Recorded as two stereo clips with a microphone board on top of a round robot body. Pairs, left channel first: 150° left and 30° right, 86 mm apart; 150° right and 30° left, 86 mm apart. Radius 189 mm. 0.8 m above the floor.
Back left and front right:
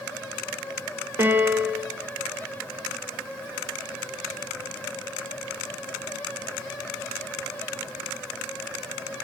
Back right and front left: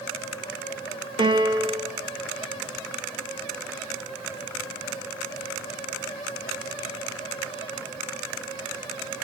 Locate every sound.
1.2 s a piano: 30° left, 1.6 m